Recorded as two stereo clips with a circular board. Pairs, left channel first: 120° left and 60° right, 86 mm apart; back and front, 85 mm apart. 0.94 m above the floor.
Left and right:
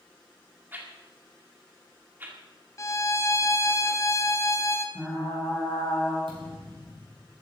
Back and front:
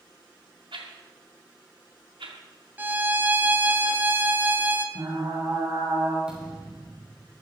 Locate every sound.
0.7 s a whoosh: 10° left, 2 m
2.8 s a violin: 65° left, 1.1 m
5.0 s frying: 35° left, 6.5 m
6.3 s a thud: 80° right, 5.5 m